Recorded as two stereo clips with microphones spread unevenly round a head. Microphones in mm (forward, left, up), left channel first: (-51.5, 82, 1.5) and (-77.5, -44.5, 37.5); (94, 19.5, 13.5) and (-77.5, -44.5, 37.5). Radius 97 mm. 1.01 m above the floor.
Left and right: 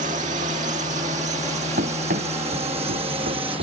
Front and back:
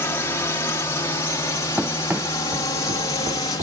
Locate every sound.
0.0 s a drone: 55° right; by 3.6 s 40° right
1.8 s running footsteps: 75° right; by 3.6 s 100° right